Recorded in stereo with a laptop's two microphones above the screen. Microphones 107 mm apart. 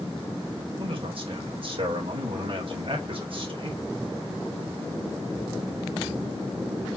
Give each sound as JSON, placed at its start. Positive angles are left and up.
{"t": 0.8, "sound": "a man speaking", "side_deg": -55, "distance_m": 4.0}